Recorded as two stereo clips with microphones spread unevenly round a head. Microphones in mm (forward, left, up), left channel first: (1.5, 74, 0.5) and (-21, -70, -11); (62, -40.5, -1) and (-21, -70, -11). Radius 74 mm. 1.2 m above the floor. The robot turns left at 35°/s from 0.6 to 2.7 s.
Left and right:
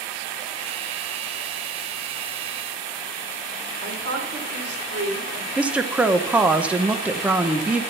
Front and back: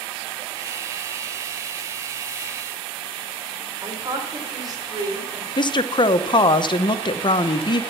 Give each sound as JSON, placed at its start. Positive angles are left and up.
{"t": 3.8, "sound": "a woman speaking", "azimuth_deg": -110, "distance_m": 3.5}
{"t": 5.6, "sound": "a woman speaking", "azimuth_deg": -20, "distance_m": 0.8}